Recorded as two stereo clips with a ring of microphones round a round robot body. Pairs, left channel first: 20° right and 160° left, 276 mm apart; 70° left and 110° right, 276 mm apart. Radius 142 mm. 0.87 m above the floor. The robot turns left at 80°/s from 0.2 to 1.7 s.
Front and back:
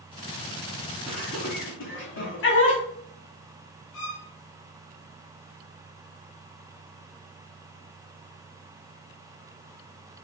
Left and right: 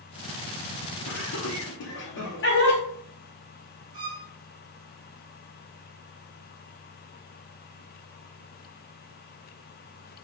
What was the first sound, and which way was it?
Laughter, 70° left.